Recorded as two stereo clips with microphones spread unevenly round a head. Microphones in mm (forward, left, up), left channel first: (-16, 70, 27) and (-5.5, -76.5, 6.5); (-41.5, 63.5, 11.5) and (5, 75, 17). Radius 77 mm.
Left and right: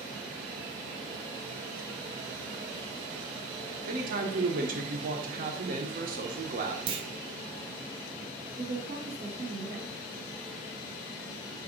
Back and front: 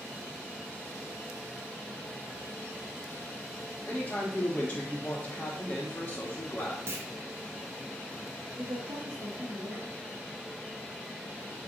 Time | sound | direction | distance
3.9 | a man speaking | 100° right | 0.9 m
6.9 | a clunk | 35° right | 0.5 m
8.6 | a woman speaking | 30° right | 1.7 m